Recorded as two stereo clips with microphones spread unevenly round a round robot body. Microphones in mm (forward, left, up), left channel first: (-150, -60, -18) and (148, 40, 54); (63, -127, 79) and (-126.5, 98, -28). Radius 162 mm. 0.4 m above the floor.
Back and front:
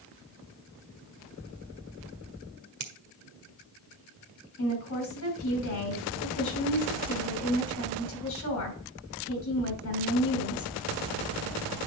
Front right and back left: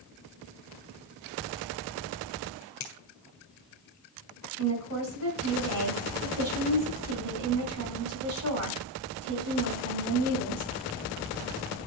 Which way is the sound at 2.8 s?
15° left.